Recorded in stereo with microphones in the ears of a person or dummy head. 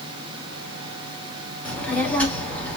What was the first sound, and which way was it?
A child speaking, 10° left (ahead or behind).